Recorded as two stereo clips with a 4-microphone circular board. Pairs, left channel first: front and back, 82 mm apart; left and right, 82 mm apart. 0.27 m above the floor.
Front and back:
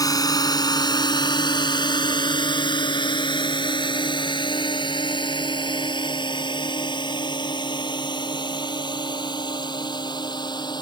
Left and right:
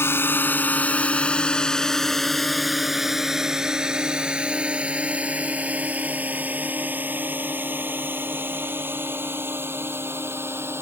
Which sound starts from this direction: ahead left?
A drone, at 0.0 s.